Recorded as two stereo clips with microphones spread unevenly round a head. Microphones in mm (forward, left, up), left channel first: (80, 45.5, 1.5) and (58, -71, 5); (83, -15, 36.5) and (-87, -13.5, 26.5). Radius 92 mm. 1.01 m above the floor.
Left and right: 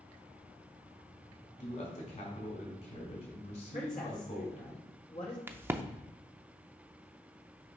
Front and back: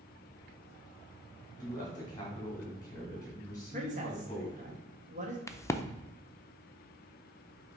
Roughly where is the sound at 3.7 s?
Behind left.